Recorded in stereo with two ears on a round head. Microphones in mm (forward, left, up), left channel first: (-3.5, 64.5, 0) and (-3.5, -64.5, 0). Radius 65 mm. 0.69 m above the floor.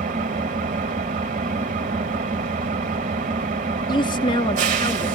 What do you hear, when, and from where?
0.0 s an engine running: 55° right (ahead or behind), 1.3 m
3.9 s a woman speaking: 30° left (ahead or behind), 1.0 m